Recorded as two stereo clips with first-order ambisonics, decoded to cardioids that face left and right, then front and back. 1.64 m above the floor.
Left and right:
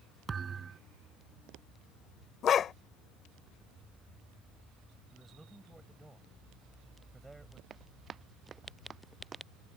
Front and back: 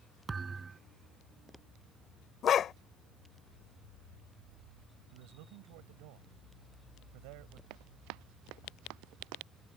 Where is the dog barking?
45° left.